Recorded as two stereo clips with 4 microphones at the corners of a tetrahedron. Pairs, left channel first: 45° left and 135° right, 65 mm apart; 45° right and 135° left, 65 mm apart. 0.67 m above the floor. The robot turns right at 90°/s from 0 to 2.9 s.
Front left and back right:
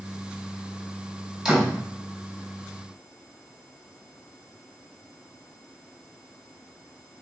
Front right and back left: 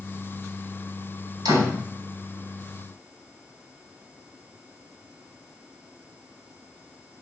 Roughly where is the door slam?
Behind left.